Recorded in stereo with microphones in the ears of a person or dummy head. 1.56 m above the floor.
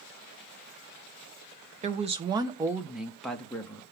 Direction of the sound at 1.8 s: 35° right (ahead or behind).